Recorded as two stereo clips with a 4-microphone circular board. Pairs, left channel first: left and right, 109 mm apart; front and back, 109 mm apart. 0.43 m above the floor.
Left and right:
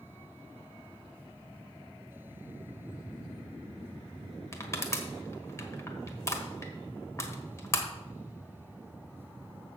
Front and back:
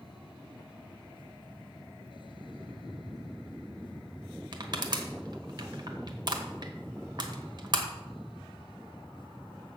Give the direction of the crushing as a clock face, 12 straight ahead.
7 o'clock.